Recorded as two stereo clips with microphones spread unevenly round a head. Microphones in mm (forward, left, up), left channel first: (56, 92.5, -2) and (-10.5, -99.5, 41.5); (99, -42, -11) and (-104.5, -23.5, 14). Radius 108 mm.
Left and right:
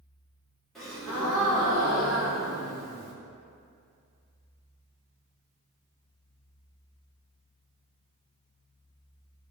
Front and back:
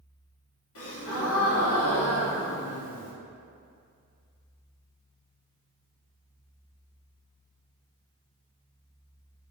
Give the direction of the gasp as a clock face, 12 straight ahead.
1 o'clock.